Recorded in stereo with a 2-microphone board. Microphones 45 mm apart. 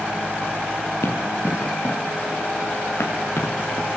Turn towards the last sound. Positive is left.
turn(degrees=85)